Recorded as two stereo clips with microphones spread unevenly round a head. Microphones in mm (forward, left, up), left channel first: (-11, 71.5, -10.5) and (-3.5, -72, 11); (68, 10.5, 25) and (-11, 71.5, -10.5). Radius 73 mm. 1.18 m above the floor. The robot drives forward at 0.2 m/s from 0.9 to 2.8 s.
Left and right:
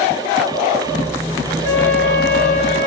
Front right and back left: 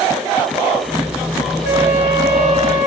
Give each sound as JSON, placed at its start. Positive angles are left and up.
{"t": 1.6, "sound": "a flute", "azimuth_deg": -45, "distance_m": 2.5}